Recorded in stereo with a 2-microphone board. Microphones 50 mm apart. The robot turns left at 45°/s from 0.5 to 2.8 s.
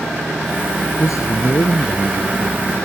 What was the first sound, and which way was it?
A man speaking, 95° left.